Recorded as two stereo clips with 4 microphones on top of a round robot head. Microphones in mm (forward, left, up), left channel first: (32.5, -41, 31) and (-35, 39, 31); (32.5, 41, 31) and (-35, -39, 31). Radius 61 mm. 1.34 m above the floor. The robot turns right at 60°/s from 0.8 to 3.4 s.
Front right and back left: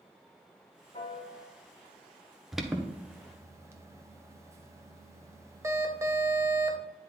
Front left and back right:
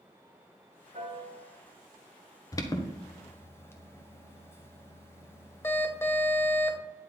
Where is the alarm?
40° left, 1.1 m; by 6.8 s 95° left, 1.1 m.